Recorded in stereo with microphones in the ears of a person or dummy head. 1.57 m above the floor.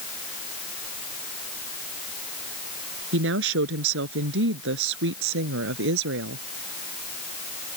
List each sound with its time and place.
3.1 s a woman speaking: 70° right (ahead or behind)